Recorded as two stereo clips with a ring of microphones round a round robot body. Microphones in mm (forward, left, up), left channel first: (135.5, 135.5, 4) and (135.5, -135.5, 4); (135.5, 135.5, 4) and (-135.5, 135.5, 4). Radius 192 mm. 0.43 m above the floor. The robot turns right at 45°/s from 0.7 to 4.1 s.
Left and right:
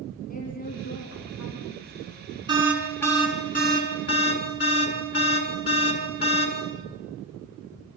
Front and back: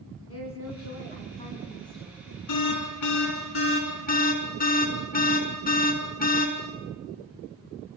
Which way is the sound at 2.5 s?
15° right.